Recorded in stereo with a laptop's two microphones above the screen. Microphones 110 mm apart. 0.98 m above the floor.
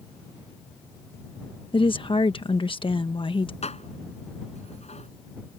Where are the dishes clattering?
75° left (ahead or behind).